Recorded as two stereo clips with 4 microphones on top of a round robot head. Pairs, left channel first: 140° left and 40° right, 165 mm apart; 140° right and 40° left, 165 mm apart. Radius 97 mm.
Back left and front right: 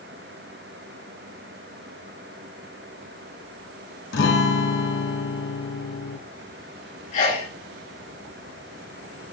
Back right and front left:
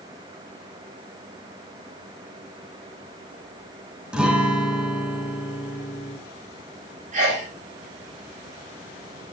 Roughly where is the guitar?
Behind left.